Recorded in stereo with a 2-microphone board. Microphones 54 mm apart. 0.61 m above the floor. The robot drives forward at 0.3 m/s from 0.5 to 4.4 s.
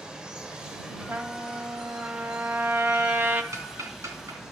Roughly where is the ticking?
Right.